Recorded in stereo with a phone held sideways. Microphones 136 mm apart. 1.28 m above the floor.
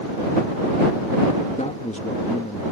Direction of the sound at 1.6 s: 60° left (ahead or behind).